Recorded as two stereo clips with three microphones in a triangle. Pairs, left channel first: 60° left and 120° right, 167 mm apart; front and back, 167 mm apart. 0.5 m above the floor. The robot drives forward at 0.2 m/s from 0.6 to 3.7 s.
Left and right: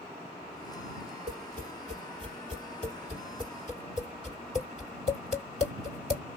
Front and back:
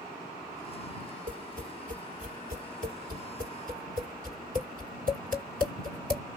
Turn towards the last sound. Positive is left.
turn(degrees=-160)